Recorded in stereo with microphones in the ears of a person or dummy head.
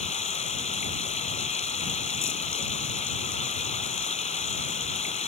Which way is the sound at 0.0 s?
35° left (ahead or behind).